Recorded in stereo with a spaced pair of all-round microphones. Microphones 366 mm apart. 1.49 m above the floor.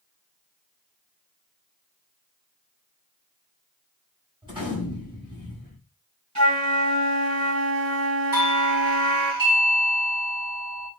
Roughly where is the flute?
Right.